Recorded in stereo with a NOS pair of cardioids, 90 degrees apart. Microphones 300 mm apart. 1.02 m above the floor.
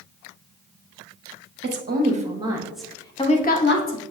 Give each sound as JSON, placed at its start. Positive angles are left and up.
{"t": 1.6, "sound": "a woman speaking", "azimuth_deg": -35, "distance_m": 1.4}